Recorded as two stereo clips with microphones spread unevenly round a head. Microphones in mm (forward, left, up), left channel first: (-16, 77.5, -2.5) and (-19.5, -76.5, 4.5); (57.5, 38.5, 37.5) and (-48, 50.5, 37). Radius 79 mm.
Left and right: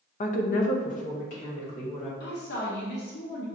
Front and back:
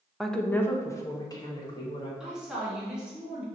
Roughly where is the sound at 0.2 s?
Left.